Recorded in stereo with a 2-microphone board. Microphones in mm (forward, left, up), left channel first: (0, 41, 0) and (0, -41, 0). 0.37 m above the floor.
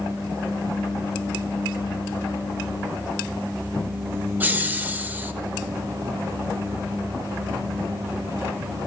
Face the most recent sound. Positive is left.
turn(degrees=-20)  # may be behind; listen again after turning